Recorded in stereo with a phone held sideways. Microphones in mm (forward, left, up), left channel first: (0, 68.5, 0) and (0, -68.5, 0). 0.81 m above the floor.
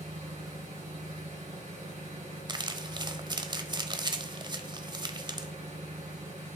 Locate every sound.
0.0 s an engine running: 70° right (ahead or behind), 7 m
2.5 s crumpling: 35° right (ahead or behind), 0.9 m